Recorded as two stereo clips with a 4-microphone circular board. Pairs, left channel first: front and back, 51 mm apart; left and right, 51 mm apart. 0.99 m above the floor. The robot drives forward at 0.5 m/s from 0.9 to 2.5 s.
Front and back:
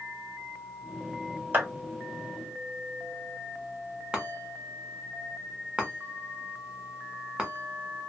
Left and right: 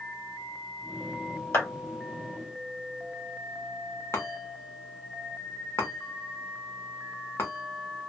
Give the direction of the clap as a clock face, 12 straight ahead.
8 o'clock.